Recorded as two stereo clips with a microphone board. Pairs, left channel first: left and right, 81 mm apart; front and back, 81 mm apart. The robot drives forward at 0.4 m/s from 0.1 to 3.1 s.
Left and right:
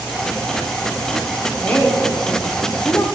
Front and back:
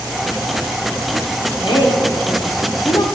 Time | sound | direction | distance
1.6 | a woman speaking | 20° left | 1.4 m